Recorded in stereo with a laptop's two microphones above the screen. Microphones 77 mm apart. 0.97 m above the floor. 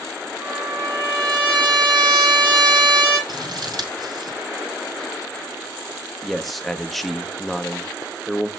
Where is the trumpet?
75° right (ahead or behind), 7.5 m.